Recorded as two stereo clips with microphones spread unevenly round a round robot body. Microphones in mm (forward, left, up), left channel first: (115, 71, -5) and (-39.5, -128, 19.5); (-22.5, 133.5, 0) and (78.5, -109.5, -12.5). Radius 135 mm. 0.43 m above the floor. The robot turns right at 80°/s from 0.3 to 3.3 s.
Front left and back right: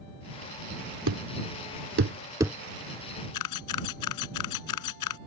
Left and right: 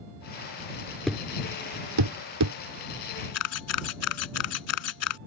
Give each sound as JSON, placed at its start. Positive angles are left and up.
{"t": 1.1, "sound": "a thud", "azimuth_deg": -160}
{"t": 3.3, "sound": "a camera shutter", "azimuth_deg": 80}